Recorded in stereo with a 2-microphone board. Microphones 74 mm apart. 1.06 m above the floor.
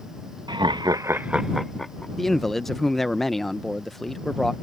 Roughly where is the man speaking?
Centre.